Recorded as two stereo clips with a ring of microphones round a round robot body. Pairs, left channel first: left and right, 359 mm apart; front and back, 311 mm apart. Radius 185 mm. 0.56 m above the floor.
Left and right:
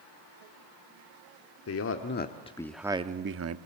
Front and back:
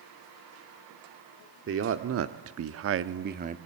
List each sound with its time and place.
1.7 s a man speaking: 135° left, 1.4 m; by 3.6 s 120° right, 1.0 m